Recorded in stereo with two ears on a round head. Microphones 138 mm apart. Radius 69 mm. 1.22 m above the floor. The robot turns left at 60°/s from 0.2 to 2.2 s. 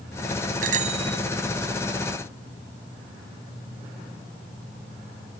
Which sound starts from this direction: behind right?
A bicycle bell, at 0.6 s.